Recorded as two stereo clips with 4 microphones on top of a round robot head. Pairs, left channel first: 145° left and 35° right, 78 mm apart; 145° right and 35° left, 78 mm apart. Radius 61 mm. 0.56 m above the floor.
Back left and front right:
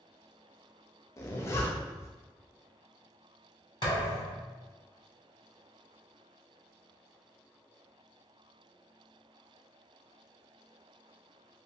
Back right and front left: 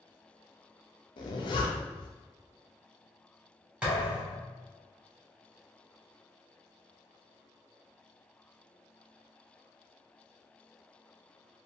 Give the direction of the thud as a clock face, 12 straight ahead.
8 o'clock.